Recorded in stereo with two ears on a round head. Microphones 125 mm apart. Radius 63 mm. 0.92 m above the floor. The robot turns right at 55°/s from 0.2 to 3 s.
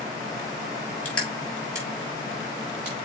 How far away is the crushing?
About 5.5 m.